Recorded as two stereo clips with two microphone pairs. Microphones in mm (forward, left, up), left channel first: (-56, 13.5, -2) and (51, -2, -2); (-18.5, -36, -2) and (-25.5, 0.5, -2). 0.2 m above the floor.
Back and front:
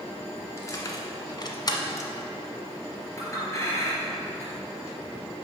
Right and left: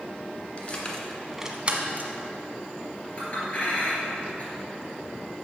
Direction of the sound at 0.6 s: 130° right.